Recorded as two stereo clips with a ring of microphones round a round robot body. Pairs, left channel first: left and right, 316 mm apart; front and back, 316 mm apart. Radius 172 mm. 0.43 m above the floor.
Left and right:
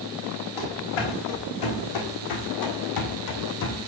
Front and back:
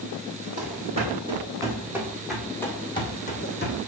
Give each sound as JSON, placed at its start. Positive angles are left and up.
{"t": 0.6, "sound": "running footsteps", "azimuth_deg": 110, "distance_m": 2.5}